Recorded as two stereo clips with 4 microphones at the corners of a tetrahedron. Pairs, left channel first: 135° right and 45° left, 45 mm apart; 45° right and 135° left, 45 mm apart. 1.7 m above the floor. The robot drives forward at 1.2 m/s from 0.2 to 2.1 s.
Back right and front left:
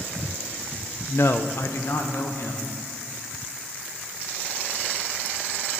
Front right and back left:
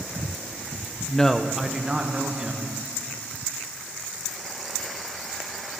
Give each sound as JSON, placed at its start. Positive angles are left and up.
{"t": 1.1, "sound": "a man speaking", "azimuth_deg": -115, "distance_m": 0.7}